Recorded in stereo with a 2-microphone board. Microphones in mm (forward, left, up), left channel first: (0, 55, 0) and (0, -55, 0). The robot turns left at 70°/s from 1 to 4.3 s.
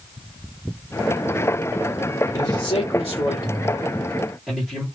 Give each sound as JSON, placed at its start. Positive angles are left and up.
{"t": 2.3, "sound": "a man speaking", "azimuth_deg": 130, "distance_m": 1.8}